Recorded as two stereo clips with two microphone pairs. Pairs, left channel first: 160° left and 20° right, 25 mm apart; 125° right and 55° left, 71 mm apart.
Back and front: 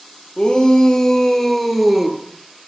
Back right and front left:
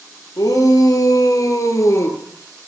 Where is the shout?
145° right, 3.5 m; by 2.2 s 90° right, 2.5 m.